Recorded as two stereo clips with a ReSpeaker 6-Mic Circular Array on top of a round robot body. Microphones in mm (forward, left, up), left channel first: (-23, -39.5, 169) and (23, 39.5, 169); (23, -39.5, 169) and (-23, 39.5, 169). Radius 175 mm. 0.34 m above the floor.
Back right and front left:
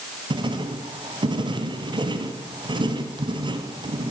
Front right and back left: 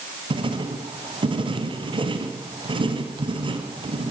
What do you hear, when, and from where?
0.3 s writing: 95° left, 2.5 m